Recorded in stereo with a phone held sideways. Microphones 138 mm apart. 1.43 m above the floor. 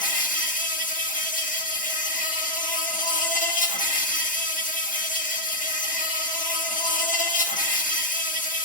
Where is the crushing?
I don't hear crushing.